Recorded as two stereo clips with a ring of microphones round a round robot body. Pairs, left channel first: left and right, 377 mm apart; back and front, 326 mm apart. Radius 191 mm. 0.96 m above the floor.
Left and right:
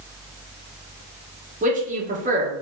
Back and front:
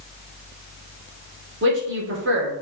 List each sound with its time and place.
1.6 s a man speaking: 30° right, 1.1 m